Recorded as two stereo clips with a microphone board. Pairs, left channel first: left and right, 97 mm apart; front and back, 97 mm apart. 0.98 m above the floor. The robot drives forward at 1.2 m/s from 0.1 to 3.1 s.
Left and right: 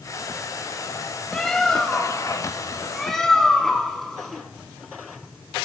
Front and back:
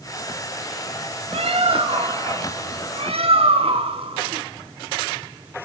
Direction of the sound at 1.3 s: 175° left.